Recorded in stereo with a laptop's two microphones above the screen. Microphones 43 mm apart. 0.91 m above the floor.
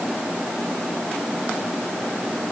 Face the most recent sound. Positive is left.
No sound to turn to.